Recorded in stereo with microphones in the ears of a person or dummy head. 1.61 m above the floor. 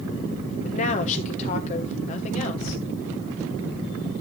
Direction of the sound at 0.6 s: 40° left (ahead or behind).